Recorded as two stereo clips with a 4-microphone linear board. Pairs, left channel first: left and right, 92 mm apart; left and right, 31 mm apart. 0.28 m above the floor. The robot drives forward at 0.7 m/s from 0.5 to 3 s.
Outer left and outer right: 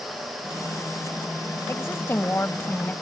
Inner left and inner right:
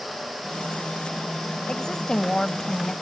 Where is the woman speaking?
30° left (ahead or behind); by 2.9 s 20° left (ahead or behind).